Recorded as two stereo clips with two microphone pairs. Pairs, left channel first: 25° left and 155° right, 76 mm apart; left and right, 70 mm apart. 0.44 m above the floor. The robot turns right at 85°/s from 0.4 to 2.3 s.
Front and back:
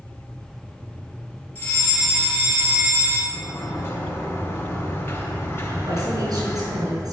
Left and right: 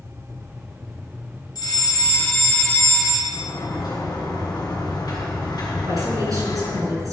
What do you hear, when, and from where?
1.6 s a fire alarm: 80° left, 4 m; by 3.2 s 145° left, 4 m
3.3 s a sliding door: 80° left, 3 m
5.8 s a woman speaking: 125° right, 5 m